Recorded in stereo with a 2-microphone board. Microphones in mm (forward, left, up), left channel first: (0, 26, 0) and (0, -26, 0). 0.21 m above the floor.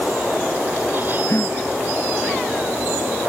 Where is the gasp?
65° left (ahead or behind).